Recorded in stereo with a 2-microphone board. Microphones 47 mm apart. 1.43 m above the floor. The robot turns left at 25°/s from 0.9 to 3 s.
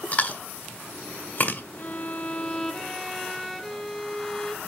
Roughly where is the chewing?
Left.